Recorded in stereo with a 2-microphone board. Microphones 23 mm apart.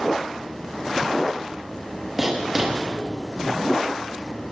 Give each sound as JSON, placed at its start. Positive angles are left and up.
{"t": 2.2, "sound": "writing", "side_deg": -10, "distance_m": 5.5}